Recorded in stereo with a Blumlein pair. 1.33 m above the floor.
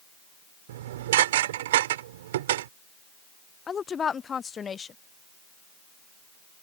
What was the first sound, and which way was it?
Dishes clattering, 55° right.